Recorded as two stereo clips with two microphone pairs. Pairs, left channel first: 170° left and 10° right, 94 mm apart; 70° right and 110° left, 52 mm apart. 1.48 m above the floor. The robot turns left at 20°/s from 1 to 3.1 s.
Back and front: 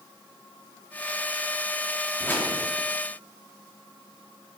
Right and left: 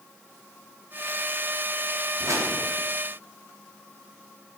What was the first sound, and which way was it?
A whoosh, 105° left.